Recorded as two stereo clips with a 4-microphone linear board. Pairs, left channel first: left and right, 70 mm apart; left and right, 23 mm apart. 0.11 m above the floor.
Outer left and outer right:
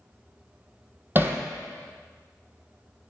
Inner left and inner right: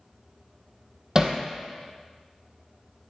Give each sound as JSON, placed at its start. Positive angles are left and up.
{"t": 1.1, "sound": "hammering", "side_deg": -30, "distance_m": 1.0}